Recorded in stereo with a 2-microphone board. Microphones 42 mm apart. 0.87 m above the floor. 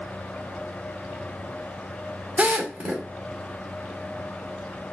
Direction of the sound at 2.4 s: 35° right (ahead or behind).